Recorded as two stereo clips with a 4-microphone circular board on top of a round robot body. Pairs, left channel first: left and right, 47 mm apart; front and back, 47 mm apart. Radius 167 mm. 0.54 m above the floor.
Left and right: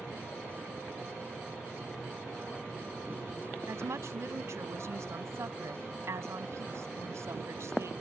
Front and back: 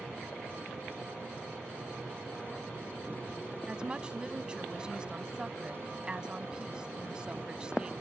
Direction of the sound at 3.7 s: 110° right.